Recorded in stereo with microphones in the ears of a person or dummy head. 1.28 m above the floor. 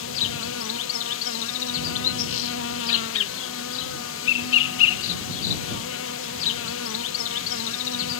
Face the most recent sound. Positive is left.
turn(degrees=65)  # may be behind; listen again after turning